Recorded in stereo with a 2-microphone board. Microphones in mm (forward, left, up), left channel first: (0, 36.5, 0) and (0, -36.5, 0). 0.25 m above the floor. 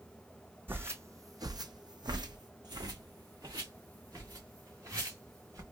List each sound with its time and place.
0.7 s footsteps: 30° right (ahead or behind), 0.8 m; by 5.6 s 45° right (ahead or behind), 2.5 m